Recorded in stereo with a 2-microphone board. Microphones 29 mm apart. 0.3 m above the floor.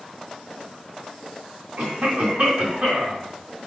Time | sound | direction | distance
1.8 | a cough | 65° right (ahead or behind) | 2.5 m